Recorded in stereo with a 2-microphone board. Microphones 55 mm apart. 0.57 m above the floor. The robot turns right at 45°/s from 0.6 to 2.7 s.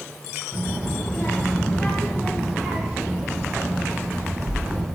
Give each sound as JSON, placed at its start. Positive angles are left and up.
{"t": 0.5, "sound": "a child speaking", "azimuth_deg": 125, "distance_m": 2.5}